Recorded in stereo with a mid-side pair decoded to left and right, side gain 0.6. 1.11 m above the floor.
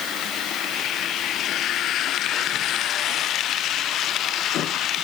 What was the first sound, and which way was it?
Only background noise.